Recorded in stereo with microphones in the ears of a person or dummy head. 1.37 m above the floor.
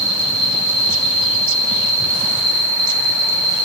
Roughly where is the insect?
Right.